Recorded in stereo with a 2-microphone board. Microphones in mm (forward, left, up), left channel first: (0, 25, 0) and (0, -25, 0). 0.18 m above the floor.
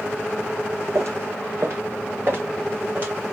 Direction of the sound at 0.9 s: 70° right (ahead or behind).